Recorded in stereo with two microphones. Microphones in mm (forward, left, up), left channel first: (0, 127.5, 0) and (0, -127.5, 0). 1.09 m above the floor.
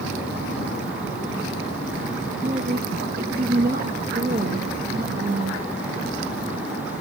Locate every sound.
2.4 s a woman speaking: 35° right (ahead or behind), 1.5 m